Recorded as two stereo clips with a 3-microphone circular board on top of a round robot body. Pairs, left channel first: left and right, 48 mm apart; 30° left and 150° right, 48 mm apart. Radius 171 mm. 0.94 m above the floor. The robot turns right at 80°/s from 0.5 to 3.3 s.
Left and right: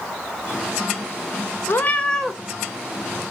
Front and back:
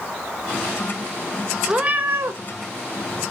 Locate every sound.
1.7 s a cat meowing: 130° left, 0.7 m; by 2.4 s 175° right, 0.7 m